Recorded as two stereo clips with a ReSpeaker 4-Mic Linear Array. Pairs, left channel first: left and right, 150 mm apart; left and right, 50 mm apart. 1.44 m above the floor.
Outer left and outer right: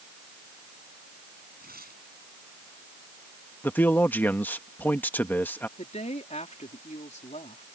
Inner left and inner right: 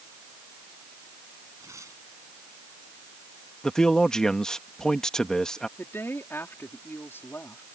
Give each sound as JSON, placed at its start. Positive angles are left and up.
{"t": 1.6, "sound": "tearing paper", "side_deg": -85}
{"t": 3.6, "sound": "a man speaking", "side_deg": 15}
{"t": 5.8, "sound": "a woman speaking", "side_deg": 50}